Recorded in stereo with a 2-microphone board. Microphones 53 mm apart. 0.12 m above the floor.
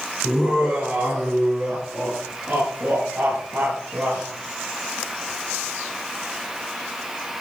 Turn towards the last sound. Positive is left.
turn(degrees=-65)  # may be behind; listen again after turning